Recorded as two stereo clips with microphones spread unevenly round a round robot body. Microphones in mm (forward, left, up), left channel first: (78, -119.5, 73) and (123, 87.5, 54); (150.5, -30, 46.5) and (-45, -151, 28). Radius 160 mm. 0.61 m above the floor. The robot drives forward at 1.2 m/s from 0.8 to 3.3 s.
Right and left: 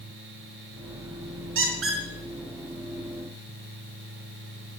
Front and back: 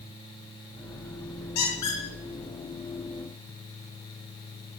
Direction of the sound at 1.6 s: 55° left.